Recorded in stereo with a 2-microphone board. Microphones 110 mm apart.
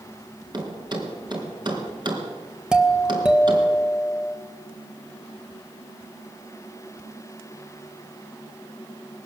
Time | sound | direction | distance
0.5 | a thud | 45° right (ahead or behind) | 3.5 m
2.7 | a doorbell | 10° right (ahead or behind) | 1.6 m